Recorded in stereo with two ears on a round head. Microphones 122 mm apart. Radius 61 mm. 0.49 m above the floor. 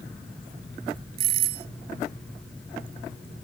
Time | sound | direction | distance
1.2 | a doorbell | 80° right | ?